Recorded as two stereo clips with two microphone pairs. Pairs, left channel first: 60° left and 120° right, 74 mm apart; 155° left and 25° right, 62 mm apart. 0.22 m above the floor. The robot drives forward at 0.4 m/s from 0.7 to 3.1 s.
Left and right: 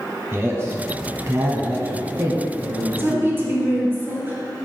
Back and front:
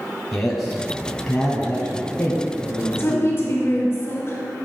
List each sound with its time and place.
0.3 s a man speaking: 120° right, 1.1 m; by 3.3 s 160° right, 1.7 m
2.9 s a woman speaking: 175° right, 2 m